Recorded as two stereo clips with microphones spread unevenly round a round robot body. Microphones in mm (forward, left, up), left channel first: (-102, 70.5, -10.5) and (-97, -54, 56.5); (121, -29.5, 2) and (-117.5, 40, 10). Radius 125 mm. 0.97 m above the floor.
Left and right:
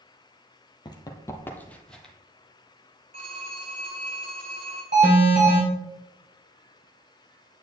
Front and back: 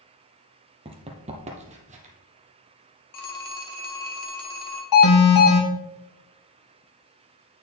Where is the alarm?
25° right, 3.5 m.